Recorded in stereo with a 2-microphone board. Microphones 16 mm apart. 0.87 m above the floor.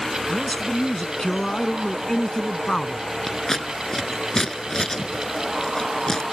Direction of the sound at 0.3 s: 40° left (ahead or behind).